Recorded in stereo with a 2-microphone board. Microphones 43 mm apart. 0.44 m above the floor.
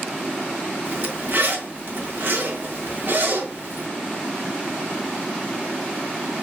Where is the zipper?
60° right (ahead or behind), 2 m.